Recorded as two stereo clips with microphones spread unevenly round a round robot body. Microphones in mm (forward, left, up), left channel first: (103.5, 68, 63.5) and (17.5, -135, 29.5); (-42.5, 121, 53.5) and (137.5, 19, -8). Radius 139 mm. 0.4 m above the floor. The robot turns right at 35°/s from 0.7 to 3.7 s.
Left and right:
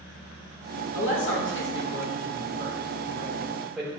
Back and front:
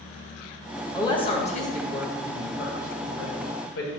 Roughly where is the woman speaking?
Ahead left.